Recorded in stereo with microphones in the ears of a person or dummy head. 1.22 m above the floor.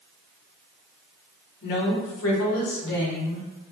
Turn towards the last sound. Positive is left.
turn(degrees=30)  # may be behind; listen again after turning